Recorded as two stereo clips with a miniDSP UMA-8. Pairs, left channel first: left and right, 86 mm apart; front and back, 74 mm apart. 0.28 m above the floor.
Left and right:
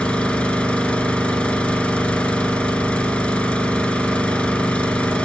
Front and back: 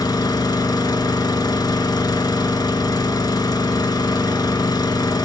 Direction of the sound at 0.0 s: 15° left.